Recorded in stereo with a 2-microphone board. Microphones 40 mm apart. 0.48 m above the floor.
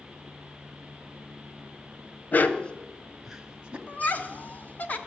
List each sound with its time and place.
2.3 s a dog barking: 45° left (ahead or behind), 0.9 m; by 3.8 s 25° right (ahead or behind), 1.2 m
3.9 s laughter: 40° left (ahead or behind), 1.1 m